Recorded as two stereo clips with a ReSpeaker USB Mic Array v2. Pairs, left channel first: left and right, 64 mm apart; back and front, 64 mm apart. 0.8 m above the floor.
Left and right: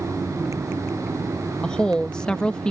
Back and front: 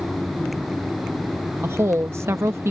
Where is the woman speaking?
15° left.